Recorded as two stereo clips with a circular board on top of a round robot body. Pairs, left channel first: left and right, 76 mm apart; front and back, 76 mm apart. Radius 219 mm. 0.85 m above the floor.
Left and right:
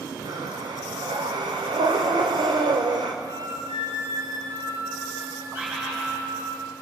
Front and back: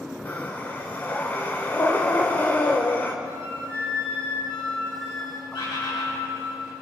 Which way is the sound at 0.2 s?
65° right.